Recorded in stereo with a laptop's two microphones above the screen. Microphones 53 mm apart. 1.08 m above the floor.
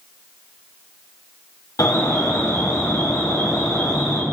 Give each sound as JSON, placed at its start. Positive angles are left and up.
{"t": 1.8, "sound": "an alarm", "side_deg": 75, "distance_m": 6.0}